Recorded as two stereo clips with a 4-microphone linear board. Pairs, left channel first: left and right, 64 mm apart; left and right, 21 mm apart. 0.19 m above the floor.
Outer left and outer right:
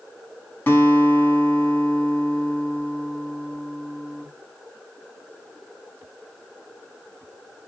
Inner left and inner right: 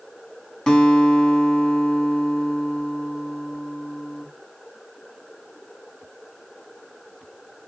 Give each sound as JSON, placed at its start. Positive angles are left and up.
{"t": 0.7, "sound": "a guitar", "side_deg": 30, "distance_m": 1.0}